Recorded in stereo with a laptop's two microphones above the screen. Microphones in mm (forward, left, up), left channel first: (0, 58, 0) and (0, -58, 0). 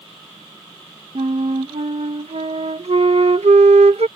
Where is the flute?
70° right (ahead or behind).